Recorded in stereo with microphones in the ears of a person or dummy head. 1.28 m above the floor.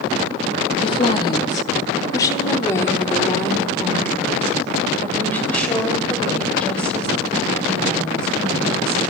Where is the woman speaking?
35° left (ahead or behind), 2.5 m; by 9.0 s 5° left (ahead or behind), 10.5 m.